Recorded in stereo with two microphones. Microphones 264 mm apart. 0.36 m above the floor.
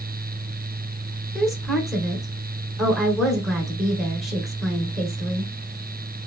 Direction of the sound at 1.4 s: Centre (ahead or behind).